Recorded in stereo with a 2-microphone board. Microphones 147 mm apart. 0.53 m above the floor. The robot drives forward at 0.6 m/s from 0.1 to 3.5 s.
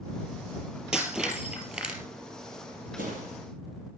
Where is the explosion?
80° right, 10 m.